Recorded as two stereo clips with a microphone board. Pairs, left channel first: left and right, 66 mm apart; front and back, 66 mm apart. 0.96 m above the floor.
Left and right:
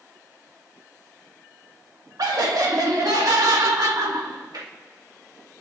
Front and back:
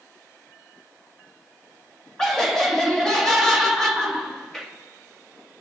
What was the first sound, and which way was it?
Laughter, 80° right.